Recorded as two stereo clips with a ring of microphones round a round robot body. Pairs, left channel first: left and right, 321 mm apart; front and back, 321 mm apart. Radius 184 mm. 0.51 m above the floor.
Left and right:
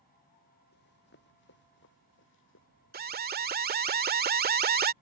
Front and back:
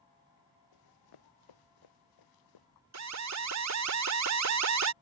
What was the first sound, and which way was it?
Running footsteps, 25° left.